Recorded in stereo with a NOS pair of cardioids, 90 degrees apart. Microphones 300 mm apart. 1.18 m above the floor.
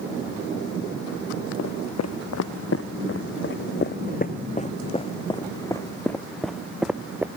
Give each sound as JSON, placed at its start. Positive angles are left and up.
{"t": 1.6, "sound": "footsteps", "azimuth_deg": 60}